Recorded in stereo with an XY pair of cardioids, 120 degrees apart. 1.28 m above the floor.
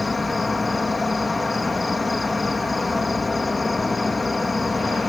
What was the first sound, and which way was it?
An insect, 15° left.